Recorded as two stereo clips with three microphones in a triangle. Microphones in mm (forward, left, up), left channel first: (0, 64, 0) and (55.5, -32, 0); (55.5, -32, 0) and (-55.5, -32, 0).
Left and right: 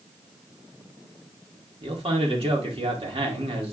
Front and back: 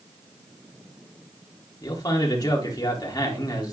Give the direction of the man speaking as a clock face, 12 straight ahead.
2 o'clock.